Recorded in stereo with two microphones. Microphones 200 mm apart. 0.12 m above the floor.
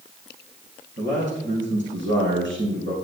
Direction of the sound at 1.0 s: 70° right (ahead or behind).